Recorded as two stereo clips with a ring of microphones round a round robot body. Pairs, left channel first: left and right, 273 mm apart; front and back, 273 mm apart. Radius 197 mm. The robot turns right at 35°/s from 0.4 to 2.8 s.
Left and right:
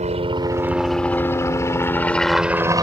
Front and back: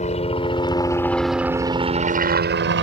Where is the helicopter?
45° right; by 2.8 s 160° right.